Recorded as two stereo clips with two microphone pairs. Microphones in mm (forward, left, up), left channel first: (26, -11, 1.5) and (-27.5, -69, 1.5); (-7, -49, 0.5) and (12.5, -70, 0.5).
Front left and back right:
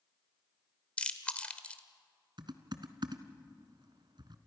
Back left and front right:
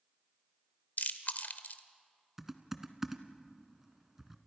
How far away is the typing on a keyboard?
About 1.4 m.